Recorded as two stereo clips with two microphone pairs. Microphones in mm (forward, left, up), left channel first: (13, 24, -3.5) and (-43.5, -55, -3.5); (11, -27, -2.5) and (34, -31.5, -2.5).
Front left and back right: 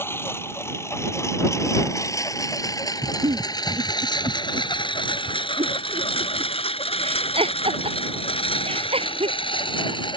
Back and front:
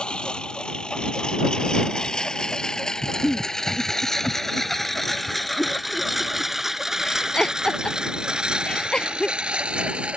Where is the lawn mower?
120° left; by 10.2 s 20° left.